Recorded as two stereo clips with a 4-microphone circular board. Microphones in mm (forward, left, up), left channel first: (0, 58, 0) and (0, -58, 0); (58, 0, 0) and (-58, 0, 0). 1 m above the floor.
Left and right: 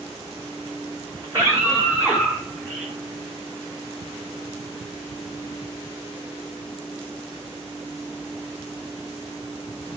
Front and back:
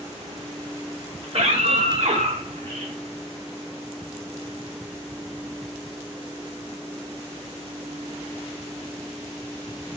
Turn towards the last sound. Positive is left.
turn(degrees=180)